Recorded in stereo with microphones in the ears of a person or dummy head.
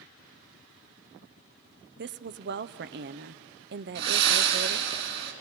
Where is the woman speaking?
50° right (ahead or behind), 0.6 m.